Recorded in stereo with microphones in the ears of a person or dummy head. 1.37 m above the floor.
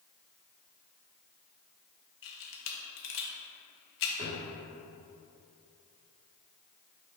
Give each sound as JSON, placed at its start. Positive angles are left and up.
{"t": 2.2, "sound": "a camera shutter", "side_deg": 65, "distance_m": 1.3}
{"t": 4.2, "sound": "a drawer", "side_deg": -35, "distance_m": 1.5}